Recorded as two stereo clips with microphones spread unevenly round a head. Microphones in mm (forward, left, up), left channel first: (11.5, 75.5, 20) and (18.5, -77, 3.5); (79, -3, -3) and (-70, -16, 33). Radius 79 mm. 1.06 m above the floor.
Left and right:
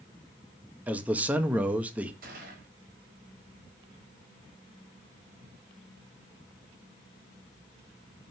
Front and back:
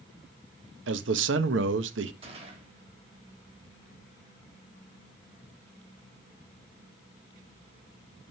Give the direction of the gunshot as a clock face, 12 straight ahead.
4 o'clock.